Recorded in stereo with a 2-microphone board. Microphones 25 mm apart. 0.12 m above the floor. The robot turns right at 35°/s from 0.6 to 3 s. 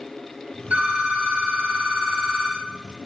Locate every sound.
0.7 s a phone ringing: 70° right, 2 m; by 2.7 s 5° right, 2 m